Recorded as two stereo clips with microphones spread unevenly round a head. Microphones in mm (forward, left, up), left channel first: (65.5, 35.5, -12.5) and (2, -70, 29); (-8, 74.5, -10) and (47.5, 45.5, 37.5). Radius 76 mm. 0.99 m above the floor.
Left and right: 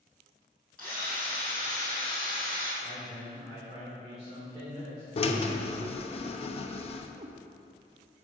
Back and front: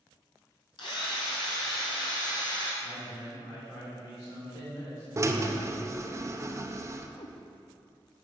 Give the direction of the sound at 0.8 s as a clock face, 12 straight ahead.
7 o'clock.